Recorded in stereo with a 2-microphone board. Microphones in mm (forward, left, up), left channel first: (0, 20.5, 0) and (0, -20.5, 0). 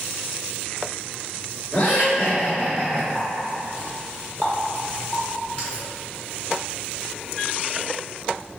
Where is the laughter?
55° left (ahead or behind), 1.8 m; by 3.0 s 15° left (ahead or behind), 1.8 m.